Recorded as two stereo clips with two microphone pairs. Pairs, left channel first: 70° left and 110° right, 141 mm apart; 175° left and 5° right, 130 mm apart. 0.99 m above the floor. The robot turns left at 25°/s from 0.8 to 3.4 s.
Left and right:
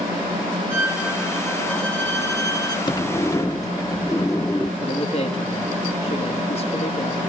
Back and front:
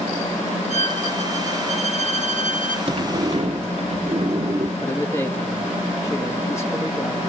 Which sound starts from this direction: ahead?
A sliding door, at 2.9 s.